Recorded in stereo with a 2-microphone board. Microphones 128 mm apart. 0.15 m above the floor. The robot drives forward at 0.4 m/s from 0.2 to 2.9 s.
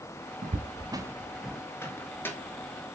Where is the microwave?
20° left (ahead or behind), 1.3 m; by 2.4 s 15° left (ahead or behind), 1.5 m.